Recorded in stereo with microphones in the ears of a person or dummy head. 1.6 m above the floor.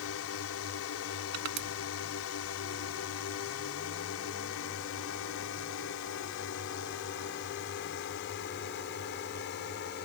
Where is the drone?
75° left (ahead or behind); by 10.1 s 50° left (ahead or behind).